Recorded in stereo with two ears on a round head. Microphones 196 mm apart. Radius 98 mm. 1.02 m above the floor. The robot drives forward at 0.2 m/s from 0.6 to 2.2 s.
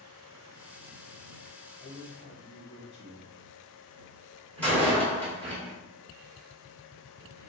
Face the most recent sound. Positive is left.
turn(degrees=5)  # may be behind; listen again after turning